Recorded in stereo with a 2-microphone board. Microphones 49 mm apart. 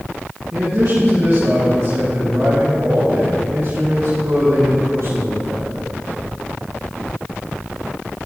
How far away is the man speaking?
About 2.5 m.